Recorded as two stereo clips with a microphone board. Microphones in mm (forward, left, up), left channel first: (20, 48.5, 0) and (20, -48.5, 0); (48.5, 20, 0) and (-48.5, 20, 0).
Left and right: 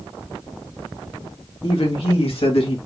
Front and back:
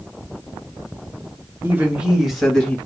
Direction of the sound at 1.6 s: 115° left.